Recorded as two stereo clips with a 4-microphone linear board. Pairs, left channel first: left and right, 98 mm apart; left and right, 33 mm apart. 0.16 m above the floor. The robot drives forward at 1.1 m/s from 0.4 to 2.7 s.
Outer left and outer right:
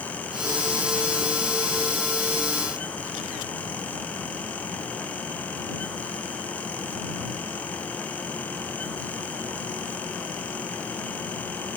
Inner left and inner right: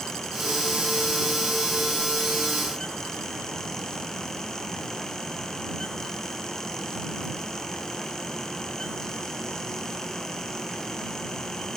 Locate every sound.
Only background noise.